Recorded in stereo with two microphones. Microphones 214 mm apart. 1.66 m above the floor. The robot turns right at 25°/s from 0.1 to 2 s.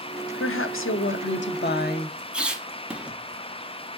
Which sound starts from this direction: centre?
A squeak, at 2.3 s.